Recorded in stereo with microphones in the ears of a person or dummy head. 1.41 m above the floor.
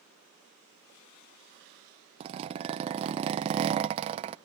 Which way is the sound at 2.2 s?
35° right (ahead or behind).